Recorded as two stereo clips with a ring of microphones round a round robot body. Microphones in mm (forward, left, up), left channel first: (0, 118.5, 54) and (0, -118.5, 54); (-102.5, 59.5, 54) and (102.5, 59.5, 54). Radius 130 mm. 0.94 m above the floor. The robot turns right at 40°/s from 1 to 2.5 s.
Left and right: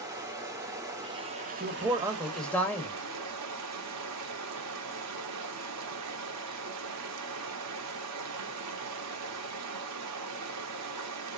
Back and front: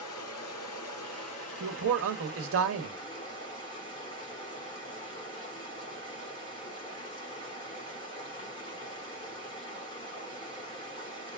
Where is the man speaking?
30° right, 1.3 m; by 3.0 s 5° left, 1.3 m.